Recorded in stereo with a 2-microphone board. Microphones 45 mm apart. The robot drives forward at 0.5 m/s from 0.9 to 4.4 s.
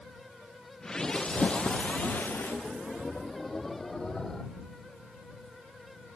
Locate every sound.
1.1 s a splash: 30° left (ahead or behind), 1.2 m; by 2.5 s 55° left (ahead or behind), 0.7 m